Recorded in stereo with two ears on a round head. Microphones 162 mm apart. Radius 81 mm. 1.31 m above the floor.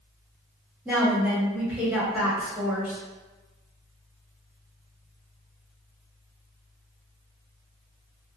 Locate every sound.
0.8 s a woman speaking: 10° right (ahead or behind), 1.1 m